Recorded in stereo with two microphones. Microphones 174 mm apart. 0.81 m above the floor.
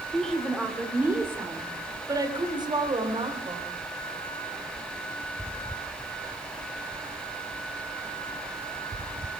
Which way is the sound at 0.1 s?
5° left (ahead or behind).